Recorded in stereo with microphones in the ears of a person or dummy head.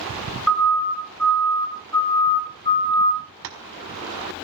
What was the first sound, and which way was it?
A siren, 5° left (ahead or behind).